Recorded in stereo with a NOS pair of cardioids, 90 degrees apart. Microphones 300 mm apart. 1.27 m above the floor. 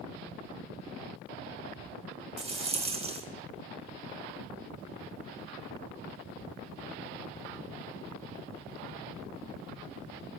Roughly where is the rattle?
Ahead.